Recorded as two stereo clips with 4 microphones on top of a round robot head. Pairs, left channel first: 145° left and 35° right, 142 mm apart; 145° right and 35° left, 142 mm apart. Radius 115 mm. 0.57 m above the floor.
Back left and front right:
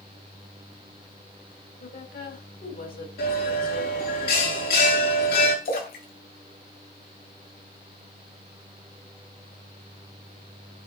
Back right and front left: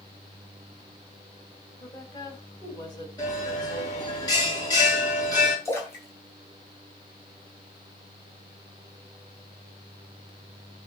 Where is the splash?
140° left, 5 m.